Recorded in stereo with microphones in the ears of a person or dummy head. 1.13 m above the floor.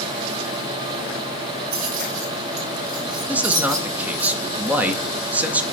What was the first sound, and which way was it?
Keys jangling, 55° right (ahead or behind).